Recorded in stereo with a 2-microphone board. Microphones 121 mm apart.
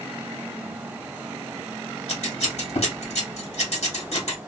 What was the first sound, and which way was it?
Scissors, 60° left (ahead or behind).